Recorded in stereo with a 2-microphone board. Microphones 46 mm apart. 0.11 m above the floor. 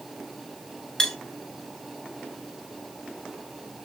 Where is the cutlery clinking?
15° left (ahead or behind), 0.7 m.